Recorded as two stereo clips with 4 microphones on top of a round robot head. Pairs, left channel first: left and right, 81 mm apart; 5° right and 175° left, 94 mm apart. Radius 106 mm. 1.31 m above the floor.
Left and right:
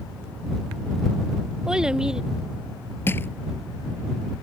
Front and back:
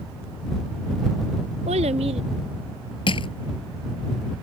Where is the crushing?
20° left.